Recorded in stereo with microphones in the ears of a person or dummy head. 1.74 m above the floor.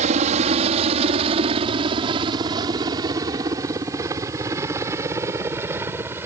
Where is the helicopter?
40° right (ahead or behind); by 6.3 s 15° right (ahead or behind).